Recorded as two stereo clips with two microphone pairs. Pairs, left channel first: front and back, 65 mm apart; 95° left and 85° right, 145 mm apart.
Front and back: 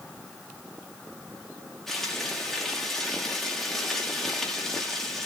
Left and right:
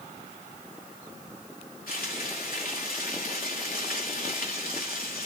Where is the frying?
85° left, 3.5 m.